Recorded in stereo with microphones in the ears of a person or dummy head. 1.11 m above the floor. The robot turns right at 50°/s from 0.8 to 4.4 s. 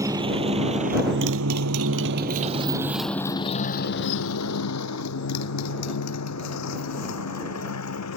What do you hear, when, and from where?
0.0 s a motorcycle: 20° right (ahead or behind); by 8.2 s 75° left (ahead or behind)